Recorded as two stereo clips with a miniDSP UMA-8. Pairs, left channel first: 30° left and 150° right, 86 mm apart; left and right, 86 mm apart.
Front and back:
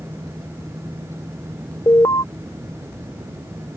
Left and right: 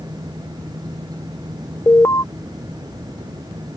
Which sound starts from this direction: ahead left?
An alarm, at 1.9 s.